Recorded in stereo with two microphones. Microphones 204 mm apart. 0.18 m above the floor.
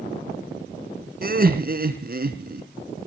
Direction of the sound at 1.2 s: 50° right (ahead or behind).